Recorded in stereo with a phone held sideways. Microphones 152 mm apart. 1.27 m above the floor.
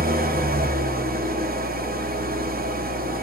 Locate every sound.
0.0 s an engine running: 75° right (ahead or behind), 1.0 m